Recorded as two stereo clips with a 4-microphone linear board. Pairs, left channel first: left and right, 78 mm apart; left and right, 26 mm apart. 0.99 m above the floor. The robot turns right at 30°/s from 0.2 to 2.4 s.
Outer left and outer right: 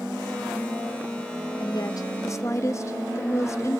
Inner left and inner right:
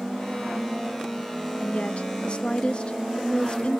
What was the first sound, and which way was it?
A woman speaking, 60° left (ahead or behind).